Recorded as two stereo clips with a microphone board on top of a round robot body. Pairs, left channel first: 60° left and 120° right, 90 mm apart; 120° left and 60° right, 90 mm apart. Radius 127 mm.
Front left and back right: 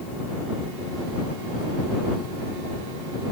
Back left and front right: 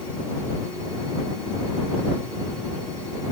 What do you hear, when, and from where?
Only background noise.